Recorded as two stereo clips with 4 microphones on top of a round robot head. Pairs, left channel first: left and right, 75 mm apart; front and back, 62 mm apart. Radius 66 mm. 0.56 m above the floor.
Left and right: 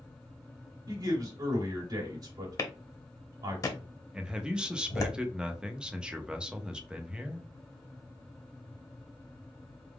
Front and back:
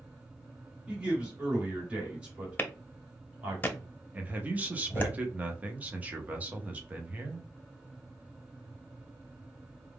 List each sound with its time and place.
0.9 s a man speaking: 110° right, 1.9 m
2.6 s a clap: 50° left, 0.9 m
4.1 s a man speaking: 160° right, 0.8 m